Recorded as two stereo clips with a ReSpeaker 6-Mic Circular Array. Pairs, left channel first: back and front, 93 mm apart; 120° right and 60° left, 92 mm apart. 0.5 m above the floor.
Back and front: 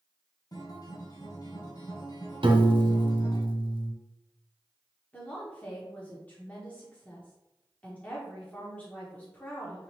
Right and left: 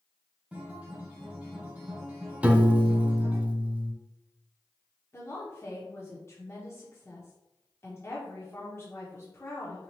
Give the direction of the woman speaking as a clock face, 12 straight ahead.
4 o'clock.